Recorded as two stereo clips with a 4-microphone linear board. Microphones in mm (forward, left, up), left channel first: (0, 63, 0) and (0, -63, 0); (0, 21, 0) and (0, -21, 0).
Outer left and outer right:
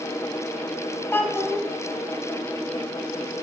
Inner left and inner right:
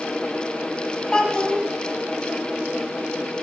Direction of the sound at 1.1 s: 20° left (ahead or behind).